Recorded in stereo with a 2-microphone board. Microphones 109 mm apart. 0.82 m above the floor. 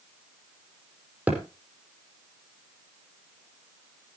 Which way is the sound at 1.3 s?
15° right (ahead or behind).